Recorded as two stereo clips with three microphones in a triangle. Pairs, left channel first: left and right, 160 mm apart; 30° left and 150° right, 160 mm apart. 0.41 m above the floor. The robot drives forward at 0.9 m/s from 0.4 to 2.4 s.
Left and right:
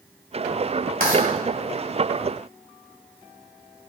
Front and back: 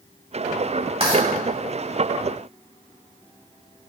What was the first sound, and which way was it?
Writing, 100° right.